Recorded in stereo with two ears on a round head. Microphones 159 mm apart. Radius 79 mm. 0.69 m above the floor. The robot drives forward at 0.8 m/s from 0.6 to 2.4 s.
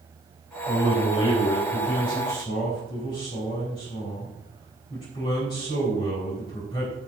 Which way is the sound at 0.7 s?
40° left (ahead or behind).